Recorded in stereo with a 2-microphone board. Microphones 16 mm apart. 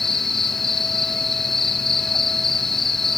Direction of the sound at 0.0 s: 20° left (ahead or behind).